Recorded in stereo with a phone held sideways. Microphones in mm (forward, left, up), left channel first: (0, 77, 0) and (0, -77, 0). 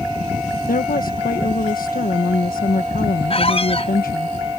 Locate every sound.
0.7 s a woman speaking: 70° left (ahead or behind)
3.3 s a squeak: 40° left (ahead or behind)